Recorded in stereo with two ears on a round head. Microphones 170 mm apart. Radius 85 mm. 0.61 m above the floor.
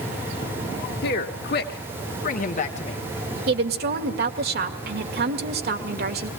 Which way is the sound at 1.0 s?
55° left (ahead or behind).